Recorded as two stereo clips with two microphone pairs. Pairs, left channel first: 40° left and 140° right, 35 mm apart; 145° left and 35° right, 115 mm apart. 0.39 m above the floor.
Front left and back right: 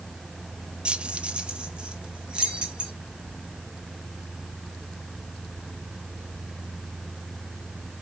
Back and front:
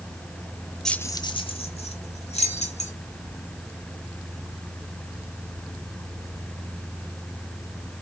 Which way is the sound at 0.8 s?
130° right.